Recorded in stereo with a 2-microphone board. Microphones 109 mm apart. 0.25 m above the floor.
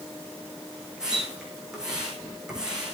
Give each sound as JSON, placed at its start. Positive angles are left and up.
{"t": 1.0, "sound": "a splash", "side_deg": -5, "distance_m": 7.0}